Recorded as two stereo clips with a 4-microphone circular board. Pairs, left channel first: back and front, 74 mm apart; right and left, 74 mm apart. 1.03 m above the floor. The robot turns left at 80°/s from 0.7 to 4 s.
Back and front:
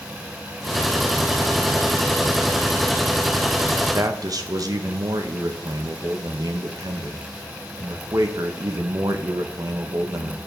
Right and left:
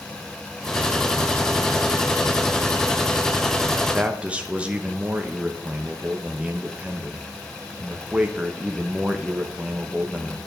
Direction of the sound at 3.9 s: 30° left.